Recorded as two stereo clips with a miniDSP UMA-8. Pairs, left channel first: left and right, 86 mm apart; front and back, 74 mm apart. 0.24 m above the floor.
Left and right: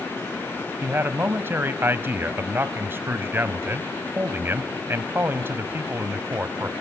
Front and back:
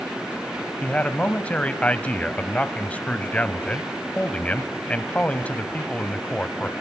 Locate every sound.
0.8 s a man speaking: 55° right, 1.1 m